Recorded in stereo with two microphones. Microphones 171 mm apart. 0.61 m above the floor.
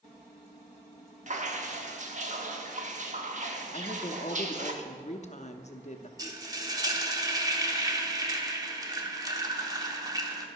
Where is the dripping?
45° right (ahead or behind), 1.0 m.